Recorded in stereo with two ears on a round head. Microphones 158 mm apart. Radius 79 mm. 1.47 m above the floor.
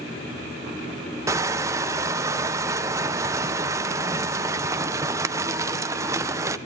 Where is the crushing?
15° right (ahead or behind), 0.6 m.